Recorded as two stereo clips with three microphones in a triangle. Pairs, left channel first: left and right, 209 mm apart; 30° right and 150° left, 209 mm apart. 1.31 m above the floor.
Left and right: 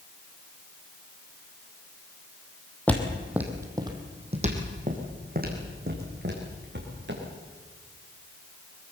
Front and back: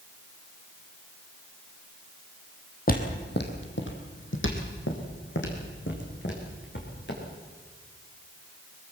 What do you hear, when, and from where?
2.9 s footsteps: 10° left, 2.5 m; by 7.2 s 60° right, 6.5 m